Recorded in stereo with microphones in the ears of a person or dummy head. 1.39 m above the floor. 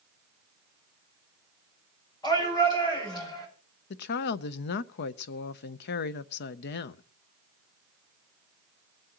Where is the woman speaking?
55° left (ahead or behind), 0.6 m.